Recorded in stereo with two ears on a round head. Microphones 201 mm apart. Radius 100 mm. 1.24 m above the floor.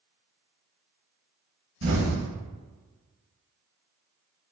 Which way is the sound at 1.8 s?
60° right (ahead or behind).